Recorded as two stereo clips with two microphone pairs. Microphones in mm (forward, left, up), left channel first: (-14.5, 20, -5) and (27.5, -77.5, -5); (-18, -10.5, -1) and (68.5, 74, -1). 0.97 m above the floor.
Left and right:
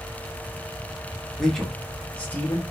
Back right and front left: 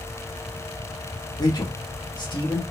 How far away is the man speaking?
About 0.9 m.